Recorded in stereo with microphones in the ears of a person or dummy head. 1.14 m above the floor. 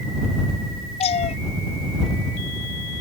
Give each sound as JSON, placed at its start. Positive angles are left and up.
{"t": 1.0, "sound": "a cat meowing", "side_deg": 35}